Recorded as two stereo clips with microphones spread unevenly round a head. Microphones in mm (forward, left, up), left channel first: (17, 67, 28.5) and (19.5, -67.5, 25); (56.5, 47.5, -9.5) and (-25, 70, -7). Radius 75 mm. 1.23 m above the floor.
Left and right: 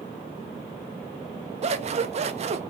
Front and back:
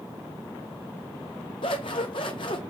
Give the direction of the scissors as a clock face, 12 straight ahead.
2 o'clock.